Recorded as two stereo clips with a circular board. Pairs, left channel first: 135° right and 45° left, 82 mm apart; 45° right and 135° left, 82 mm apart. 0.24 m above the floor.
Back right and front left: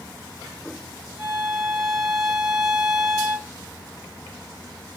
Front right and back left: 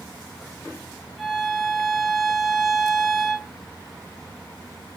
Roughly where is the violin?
Ahead left.